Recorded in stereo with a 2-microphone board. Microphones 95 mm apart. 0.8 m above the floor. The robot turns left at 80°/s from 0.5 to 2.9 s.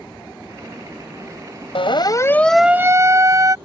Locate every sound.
1.8 s a siren: 70° left (ahead or behind); by 3.5 s 35° right (ahead or behind)